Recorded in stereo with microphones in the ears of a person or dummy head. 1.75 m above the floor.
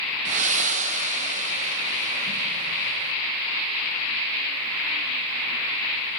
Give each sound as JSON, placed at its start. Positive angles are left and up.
{"t": 0.2, "sound": "breathing", "side_deg": -40, "distance_m": 1.1}